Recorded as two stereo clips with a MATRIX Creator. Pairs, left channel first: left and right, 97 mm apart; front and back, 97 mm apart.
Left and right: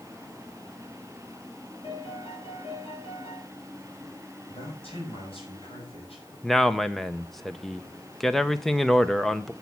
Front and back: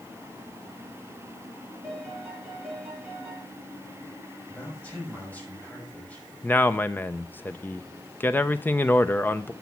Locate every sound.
1.8 s a piano: 105° left, 5.5 m
4.5 s a man speaking: 75° left, 5.5 m
6.4 s a man speaking: 10° left, 0.6 m